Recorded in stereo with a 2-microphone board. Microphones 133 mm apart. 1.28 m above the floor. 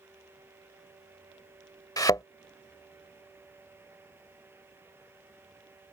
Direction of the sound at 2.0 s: 30° left (ahead or behind).